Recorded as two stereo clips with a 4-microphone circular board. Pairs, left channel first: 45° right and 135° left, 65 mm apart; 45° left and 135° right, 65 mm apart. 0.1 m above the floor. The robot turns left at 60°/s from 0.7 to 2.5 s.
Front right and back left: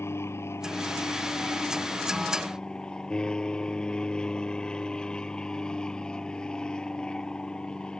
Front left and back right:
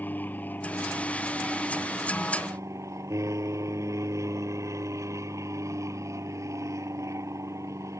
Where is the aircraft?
10° right; by 8.0 s 120° right.